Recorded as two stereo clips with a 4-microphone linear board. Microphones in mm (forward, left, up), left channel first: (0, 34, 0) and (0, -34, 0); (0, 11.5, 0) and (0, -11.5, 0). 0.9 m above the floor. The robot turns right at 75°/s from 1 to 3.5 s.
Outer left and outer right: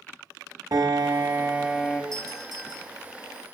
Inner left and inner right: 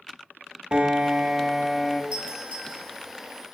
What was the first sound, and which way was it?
A piano, 60° right.